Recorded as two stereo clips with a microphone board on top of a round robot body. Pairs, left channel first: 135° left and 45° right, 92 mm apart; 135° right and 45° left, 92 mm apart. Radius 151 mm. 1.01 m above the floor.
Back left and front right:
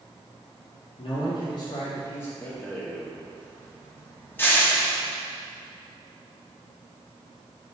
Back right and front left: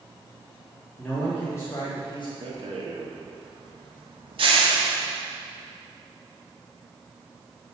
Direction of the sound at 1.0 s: 145° left.